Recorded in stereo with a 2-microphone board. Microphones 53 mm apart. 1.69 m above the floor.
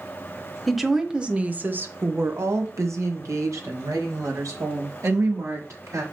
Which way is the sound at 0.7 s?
Centre (ahead or behind).